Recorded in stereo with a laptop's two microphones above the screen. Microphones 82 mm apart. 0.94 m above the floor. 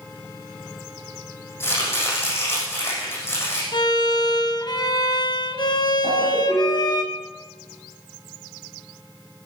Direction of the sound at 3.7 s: 60° left (ahead or behind).